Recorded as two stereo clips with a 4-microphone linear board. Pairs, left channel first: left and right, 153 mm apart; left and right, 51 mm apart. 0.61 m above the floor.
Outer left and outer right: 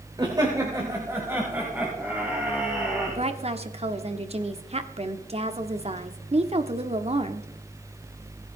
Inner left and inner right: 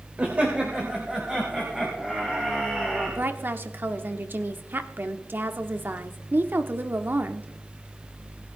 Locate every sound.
0.2 s laughter: 30° right (ahead or behind), 2.5 m; by 3.2 s 5° right (ahead or behind), 5.5 m
3.1 s a woman speaking: 45° right (ahead or behind), 1.5 m